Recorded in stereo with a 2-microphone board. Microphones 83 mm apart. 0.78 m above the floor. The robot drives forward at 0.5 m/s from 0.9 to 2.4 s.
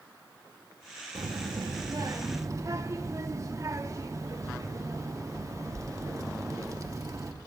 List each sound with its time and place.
1.1 s a child speaking: 65° right (ahead or behind), 0.7 m; by 7.3 s 40° right (ahead or behind), 1.0 m